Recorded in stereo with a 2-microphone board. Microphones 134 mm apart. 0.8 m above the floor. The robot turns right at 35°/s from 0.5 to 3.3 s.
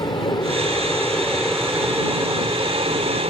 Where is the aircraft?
145° left; by 3.3 s 120° right.